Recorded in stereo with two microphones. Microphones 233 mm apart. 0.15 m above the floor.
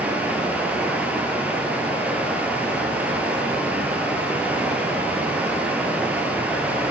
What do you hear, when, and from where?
0.0 s running water: 5° right (ahead or behind), 1.0 m